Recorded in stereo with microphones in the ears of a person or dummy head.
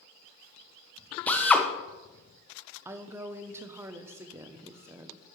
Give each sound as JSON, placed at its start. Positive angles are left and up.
{"t": 1.3, "sound": "a drill", "side_deg": 5, "distance_m": 1.0}
{"t": 2.9, "sound": "a woman speaking", "side_deg": -15, "distance_m": 0.7}